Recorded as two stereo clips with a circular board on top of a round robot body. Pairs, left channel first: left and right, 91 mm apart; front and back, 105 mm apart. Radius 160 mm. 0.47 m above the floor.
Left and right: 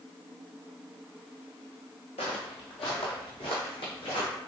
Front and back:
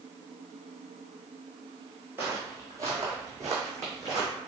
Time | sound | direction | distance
2.2 | footsteps | 110° left | 0.6 m